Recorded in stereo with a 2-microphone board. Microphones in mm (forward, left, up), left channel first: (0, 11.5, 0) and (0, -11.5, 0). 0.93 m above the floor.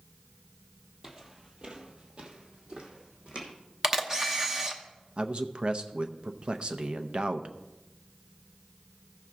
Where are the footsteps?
20° right (ahead or behind), 1.3 m; by 3.5 s 45° right (ahead or behind), 2.5 m.